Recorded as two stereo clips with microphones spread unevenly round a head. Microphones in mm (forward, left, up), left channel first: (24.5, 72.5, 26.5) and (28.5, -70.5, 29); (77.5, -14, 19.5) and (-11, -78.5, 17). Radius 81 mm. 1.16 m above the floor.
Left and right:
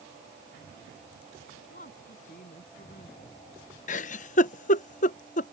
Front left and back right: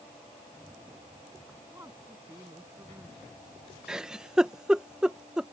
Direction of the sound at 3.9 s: 130° left.